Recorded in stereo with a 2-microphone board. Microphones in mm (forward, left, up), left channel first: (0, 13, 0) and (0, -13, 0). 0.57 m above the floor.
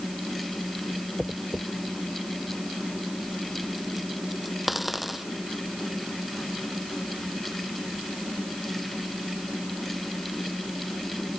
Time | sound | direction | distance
1.2 | a dropped coin | 10° right (ahead or behind) | ?